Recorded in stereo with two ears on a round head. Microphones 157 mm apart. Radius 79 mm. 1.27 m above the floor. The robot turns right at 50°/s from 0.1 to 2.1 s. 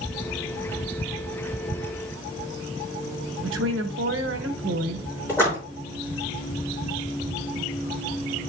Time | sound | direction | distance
3.4 | a woman speaking | 75° right (ahead or behind) | 1.2 m
5.3 | a splash | 15° left (ahead or behind) | 4.5 m